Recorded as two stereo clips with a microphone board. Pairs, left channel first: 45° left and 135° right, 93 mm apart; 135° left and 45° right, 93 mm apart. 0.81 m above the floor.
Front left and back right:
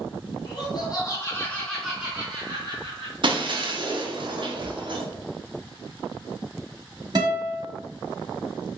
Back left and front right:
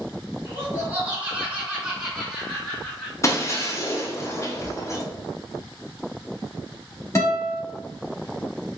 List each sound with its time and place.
0.5 s laughter: 20° left, 1.6 m; by 3.1 s 150° right, 1.5 m
3.2 s breaking glass: 170° right, 0.6 m
4.6 s a cupboard door: 50° right, 0.9 m
7.2 s a guitar: 175° right, 1.6 m